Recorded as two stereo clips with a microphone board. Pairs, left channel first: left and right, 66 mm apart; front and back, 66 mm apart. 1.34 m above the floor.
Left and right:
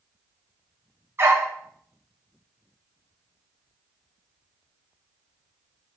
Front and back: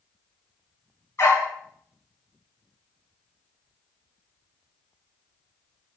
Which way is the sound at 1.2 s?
40° right.